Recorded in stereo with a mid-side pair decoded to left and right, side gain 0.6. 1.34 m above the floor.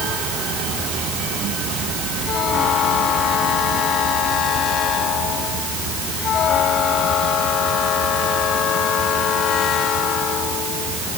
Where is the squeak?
I don't hear a squeak.